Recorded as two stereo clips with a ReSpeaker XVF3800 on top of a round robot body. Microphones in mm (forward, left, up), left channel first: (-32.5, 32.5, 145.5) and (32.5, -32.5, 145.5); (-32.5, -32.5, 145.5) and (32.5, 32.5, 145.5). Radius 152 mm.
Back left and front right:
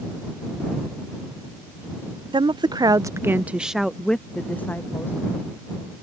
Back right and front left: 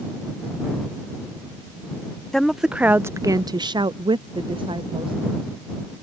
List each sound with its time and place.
2.3 s a woman speaking: 50° right; by 5.2 s 70° left